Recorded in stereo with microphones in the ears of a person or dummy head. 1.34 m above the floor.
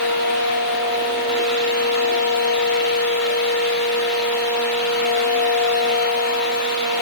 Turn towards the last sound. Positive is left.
No sound to turn to.